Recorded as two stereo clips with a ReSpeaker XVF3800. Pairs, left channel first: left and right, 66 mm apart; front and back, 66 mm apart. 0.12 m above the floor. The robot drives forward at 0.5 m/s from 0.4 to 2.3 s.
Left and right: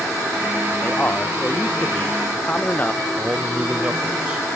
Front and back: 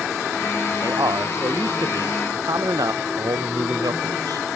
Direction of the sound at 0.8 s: 155° left.